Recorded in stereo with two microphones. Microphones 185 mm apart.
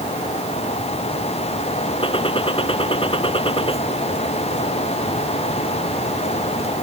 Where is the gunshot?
30° left (ahead or behind).